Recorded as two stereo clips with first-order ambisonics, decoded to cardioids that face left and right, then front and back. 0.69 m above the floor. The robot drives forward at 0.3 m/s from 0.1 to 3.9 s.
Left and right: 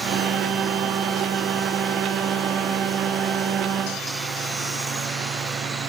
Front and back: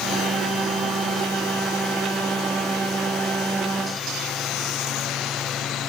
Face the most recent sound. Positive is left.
No sound to turn to.